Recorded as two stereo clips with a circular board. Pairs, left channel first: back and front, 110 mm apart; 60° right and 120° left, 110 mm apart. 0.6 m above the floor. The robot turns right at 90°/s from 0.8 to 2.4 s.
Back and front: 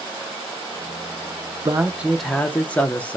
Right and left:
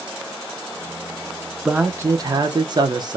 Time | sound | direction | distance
1.6 | a man speaking | 40° left | 0.7 m